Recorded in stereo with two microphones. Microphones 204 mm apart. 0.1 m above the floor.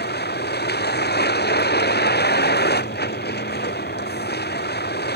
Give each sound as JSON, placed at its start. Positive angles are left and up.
{"t": 0.0, "sound": "a vehicle", "side_deg": 55}